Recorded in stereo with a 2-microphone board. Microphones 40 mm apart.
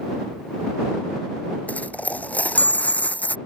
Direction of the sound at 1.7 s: 40° left (ahead or behind).